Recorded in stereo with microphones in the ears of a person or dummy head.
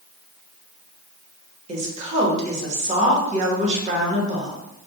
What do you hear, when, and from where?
1.7 s a woman speaking: 40° right (ahead or behind), 1.2 m